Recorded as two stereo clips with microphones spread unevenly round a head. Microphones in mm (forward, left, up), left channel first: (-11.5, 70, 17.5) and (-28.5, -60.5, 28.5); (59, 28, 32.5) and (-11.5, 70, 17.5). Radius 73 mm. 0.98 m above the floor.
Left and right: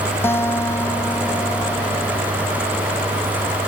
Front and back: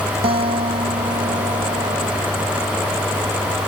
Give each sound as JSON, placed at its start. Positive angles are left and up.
{"t": 0.2, "sound": "a guitar", "azimuth_deg": 155}